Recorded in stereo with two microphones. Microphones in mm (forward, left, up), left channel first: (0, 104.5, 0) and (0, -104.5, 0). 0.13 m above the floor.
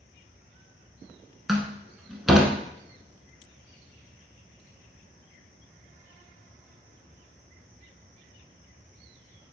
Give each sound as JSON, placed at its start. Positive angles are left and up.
{"t": 1.5, "sound": "a door slam", "side_deg": 0, "distance_m": 0.8}